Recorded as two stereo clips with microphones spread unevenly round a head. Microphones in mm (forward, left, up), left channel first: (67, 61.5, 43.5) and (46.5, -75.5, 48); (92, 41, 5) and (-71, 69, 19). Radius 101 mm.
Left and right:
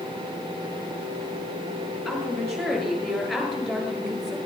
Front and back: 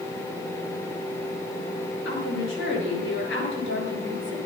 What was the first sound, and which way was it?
A woman speaking, 5° right.